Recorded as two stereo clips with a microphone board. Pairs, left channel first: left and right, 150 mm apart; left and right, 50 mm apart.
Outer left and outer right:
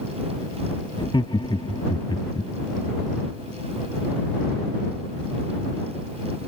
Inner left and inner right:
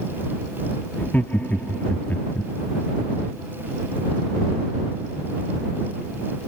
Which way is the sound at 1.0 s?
35° left (ahead or behind).